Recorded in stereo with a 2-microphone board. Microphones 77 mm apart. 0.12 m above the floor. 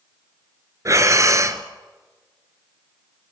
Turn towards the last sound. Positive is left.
turn(degrees=-45)  # may be behind; listen again after turning